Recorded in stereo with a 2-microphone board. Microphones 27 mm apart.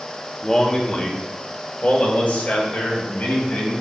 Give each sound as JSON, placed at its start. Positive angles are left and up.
{"t": 0.4, "sound": "a man speaking", "side_deg": 15, "distance_m": 0.9}